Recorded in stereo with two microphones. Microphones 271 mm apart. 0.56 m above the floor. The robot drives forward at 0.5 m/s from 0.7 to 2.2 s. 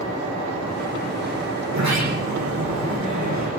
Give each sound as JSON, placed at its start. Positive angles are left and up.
{"t": 1.7, "sound": "a sliding door", "side_deg": -75, "distance_m": 9.5}